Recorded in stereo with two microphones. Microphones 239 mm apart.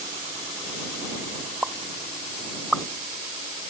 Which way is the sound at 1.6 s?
Centre (ahead or behind).